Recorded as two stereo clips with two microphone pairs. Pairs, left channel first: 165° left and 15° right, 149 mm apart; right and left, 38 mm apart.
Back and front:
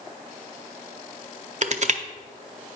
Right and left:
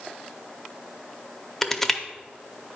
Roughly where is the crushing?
Ahead.